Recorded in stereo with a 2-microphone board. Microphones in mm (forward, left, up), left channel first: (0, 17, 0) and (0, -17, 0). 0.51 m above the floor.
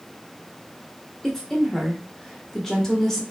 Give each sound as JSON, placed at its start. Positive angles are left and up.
{"t": 1.2, "sound": "a woman speaking", "side_deg": 15, "distance_m": 0.8}